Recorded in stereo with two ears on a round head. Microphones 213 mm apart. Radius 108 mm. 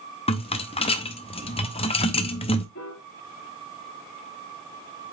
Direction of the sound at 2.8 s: 55° left (ahead or behind).